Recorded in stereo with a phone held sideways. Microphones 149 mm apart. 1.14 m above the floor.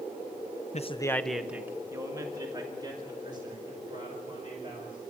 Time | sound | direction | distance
0.7 | a man speaking | 50° left (ahead or behind) | 0.6 m